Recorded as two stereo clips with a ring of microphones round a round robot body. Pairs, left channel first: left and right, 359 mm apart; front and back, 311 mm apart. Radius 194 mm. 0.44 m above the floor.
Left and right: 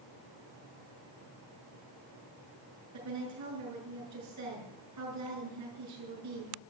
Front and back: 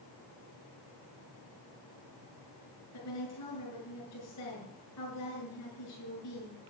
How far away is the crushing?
I don't hear crushing.